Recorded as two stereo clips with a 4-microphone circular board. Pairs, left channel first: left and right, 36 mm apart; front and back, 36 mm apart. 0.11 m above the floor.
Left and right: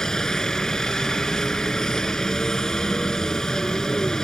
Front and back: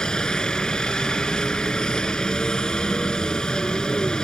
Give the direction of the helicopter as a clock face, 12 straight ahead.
11 o'clock.